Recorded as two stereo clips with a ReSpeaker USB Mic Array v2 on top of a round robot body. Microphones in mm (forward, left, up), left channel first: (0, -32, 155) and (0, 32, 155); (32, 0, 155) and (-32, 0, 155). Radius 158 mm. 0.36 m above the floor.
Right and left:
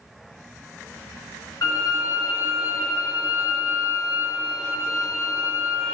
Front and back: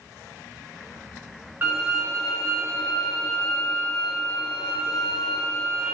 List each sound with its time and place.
1.6 s a violin: 120° right, 3.5 m